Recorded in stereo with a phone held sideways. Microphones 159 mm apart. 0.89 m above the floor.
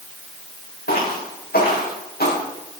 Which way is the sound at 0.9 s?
80° left.